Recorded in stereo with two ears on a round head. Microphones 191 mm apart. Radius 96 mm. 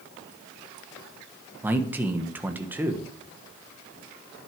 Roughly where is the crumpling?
No crumpling in this recording.